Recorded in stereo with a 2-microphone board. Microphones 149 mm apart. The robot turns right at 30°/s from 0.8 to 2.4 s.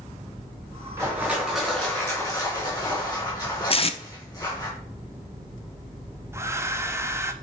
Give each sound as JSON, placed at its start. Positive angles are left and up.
{"t": 1.0, "sound": "crushing", "azimuth_deg": -20, "distance_m": 4.0}
{"t": 3.7, "sound": "tape being pulled", "side_deg": 40, "distance_m": 0.7}
{"t": 6.3, "sound": "a hair dryer", "side_deg": -20, "distance_m": 0.6}